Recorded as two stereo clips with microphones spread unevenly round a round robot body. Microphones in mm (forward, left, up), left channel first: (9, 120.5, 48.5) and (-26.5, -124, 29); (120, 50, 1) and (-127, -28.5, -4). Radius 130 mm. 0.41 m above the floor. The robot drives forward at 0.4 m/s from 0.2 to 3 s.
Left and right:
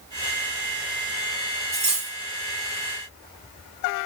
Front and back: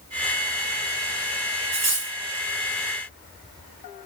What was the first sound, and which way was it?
Cutlery clinking, 160° right.